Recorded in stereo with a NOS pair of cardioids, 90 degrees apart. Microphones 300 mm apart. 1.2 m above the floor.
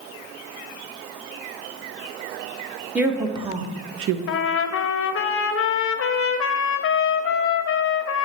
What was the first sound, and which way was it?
A woman speaking, 5° right.